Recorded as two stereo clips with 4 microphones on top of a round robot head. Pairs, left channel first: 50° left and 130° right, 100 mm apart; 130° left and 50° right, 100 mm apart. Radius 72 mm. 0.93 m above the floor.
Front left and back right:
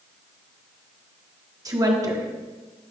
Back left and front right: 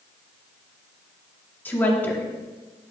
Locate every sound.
1.6 s a woman speaking: 165° right, 1.2 m